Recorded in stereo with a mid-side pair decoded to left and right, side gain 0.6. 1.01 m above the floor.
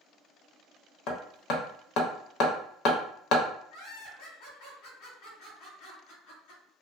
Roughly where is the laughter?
Ahead left.